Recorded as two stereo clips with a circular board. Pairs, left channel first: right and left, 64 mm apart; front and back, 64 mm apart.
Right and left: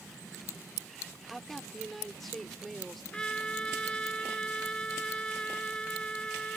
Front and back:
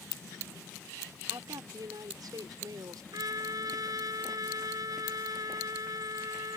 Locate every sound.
1.3 s a woman speaking: 175° right
3.1 s a trumpet: 165° right